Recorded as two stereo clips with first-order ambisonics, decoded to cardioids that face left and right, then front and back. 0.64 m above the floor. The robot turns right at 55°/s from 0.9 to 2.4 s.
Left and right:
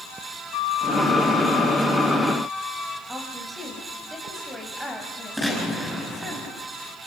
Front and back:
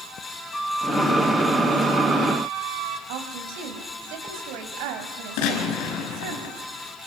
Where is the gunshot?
Straight ahead, 5.5 m.